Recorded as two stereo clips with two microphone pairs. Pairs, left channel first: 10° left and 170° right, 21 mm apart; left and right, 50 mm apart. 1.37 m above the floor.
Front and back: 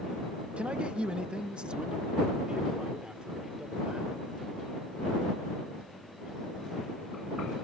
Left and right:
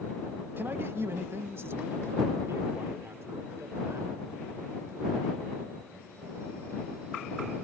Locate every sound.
0.6 s a man speaking: 140° right; by 4.2 s 120° right